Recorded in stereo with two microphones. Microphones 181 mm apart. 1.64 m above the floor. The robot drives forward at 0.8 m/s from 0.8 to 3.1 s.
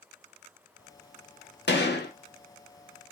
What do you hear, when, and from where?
1.7 s a gunshot: 75° left (ahead or behind), 1.6 m; by 2.1 s 65° left (ahead or behind), 1.7 m